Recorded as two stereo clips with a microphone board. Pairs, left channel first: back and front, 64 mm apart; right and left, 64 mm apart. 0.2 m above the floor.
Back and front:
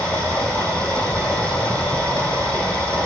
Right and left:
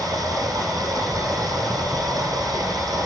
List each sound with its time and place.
0.0 s running water: 115° left, 6.5 m